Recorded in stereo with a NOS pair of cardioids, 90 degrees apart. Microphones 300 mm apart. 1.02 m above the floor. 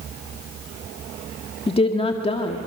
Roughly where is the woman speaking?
Ahead.